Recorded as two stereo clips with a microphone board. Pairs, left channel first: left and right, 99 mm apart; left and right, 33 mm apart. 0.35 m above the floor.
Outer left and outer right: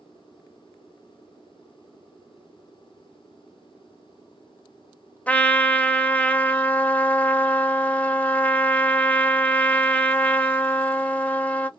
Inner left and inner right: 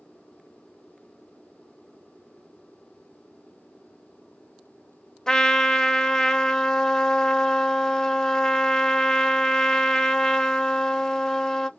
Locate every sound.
5.3 s a trumpet: 15° left (ahead or behind), 0.6 m